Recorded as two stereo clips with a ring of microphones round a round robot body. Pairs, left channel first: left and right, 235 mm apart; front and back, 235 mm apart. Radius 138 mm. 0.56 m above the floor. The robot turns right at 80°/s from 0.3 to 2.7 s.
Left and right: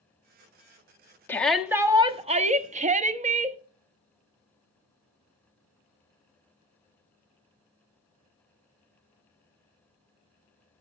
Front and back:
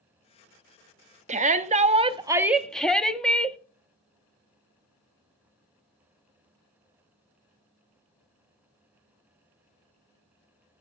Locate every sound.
1.3 s a shout: 160° left, 0.9 m; by 3.6 s 85° right, 0.9 m